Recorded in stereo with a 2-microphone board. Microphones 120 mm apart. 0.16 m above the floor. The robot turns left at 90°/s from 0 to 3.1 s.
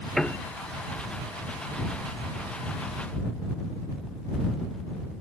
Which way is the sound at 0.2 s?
5° left (ahead or behind).